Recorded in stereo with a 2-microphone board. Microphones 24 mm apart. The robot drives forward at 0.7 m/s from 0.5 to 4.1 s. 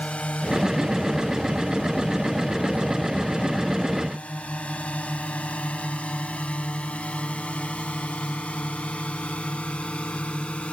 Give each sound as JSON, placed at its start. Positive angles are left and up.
{"t": 0.0, "sound": "a drone", "side_deg": 65}